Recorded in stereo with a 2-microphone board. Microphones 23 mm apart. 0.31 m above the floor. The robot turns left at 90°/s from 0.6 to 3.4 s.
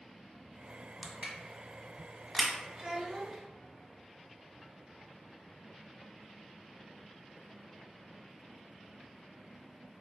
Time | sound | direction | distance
1.0 | crushing | 60° right (ahead or behind) | 0.9 m
2.8 | a child speaking | 25° right (ahead or behind) | 0.6 m